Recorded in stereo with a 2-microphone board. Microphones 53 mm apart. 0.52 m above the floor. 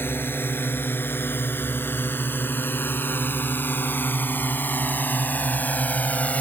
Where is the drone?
45° left (ahead or behind); by 6.4 s 30° left (ahead or behind).